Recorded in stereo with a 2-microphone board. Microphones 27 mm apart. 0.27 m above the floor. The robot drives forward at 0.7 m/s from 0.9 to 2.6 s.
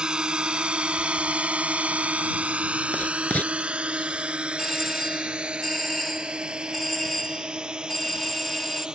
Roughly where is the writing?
Left.